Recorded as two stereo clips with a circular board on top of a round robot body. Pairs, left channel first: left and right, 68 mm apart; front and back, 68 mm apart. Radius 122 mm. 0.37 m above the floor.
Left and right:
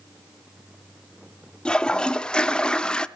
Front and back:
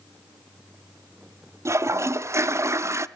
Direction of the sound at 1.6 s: 160° left.